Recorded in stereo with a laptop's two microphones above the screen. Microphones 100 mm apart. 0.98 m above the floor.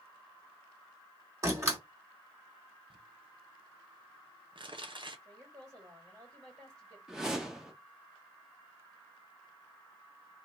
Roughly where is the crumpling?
Right.